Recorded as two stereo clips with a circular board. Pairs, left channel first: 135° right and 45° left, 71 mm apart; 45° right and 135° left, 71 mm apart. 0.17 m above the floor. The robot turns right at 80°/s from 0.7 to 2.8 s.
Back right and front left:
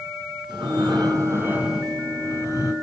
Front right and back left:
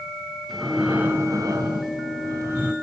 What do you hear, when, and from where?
0.5 s breathing: 45° left, 5 m; by 2.7 s 155° right, 5 m